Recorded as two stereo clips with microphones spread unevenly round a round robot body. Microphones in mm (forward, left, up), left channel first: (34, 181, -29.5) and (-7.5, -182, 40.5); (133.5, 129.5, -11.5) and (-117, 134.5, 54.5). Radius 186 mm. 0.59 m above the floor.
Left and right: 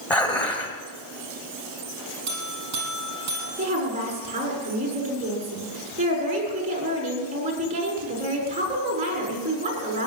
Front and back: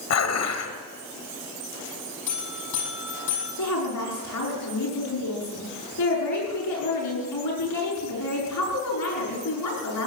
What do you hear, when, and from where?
0.1 s dishes clattering: straight ahead, 1.9 m
2.3 s a buzzer: 40° right, 5.5 m
3.6 s a woman speaking: 25° right, 6 m